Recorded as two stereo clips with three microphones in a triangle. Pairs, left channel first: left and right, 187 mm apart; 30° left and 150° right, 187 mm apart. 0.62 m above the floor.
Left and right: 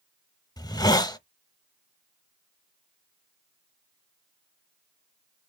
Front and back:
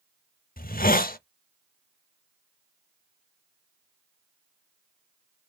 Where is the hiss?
30° left, 0.6 m.